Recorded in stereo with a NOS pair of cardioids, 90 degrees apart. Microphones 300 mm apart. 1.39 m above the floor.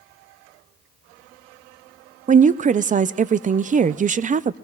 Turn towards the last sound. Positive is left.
turn(degrees=-25)